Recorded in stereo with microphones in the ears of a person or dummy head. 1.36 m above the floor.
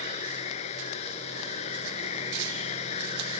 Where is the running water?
40° left (ahead or behind).